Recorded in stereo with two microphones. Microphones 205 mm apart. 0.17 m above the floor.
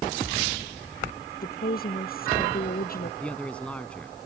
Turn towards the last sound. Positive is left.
turn(degrees=5)  # may be behind; listen again after turning